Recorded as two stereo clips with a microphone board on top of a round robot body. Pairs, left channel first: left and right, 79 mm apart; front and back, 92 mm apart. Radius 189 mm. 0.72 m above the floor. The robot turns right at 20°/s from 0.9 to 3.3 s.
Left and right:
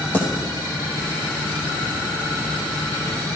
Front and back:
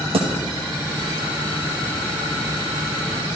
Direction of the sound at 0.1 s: 160° left.